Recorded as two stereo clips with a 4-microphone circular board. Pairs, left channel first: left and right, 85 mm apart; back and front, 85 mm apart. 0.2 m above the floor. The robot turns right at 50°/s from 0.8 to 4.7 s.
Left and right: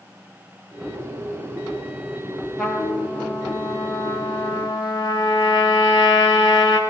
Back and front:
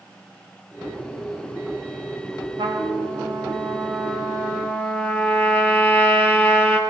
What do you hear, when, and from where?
2.6 s a trumpet: 5° left, 5 m; by 6.8 s 110° left, 5 m